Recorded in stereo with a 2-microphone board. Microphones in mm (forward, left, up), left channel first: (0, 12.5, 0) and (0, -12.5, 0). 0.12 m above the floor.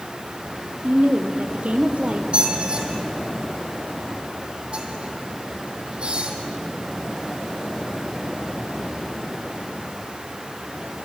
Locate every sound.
0.8 s a woman speaking: 65° right (ahead or behind), 3 m
2.3 s a squeak: 45° right (ahead or behind), 3.5 m